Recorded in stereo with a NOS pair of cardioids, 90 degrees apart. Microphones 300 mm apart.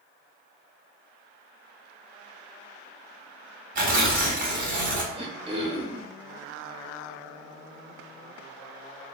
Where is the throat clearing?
15° right, 0.9 m.